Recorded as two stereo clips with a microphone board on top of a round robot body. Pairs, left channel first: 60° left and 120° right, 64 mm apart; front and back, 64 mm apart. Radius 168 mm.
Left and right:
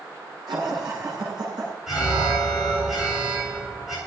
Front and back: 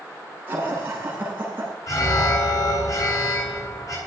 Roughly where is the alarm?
Ahead right.